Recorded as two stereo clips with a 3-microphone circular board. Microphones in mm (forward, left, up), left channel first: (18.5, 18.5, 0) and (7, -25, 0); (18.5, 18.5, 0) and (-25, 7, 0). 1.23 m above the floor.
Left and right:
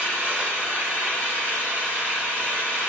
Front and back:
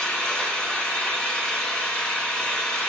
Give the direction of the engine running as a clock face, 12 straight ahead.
2 o'clock.